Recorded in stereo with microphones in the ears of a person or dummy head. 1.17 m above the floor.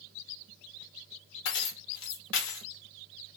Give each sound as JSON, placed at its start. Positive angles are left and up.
{"t": 1.4, "sound": "keys jangling", "side_deg": 70, "distance_m": 0.7}